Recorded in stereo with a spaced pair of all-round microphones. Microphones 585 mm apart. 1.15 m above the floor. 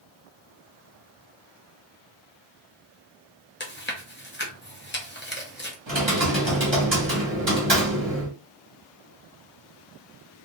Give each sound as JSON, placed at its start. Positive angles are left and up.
{"t": 3.6, "sound": "chewing", "side_deg": 20, "distance_m": 0.7}
{"t": 5.9, "sound": "typing on a keyboard", "side_deg": -45, "distance_m": 1.3}